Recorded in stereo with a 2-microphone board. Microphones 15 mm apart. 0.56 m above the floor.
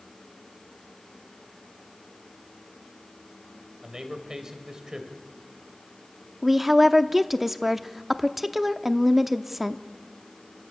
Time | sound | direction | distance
3.8 | a man speaking | 50° right (ahead or behind) | 3 m
6.4 | a woman speaking | 10° right (ahead or behind) | 0.7 m